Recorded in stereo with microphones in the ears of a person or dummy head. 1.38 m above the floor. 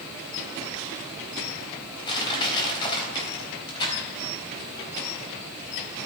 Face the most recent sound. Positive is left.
turn(degrees=30)  # may be behind; listen again after turning